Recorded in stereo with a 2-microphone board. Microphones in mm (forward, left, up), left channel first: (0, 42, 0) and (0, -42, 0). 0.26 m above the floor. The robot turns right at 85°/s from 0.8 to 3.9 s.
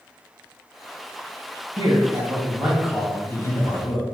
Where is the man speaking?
100° right, 1.9 m; by 4.0 s 85° left, 1.9 m.